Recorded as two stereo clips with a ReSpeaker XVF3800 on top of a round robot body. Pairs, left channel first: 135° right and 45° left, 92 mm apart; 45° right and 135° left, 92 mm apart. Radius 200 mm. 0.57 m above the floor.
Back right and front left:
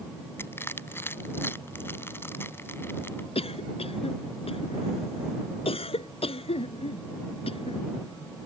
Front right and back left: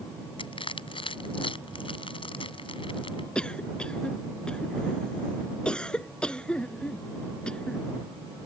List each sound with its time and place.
0.4 s crushing: 70° right
3.4 s a cough: 125° right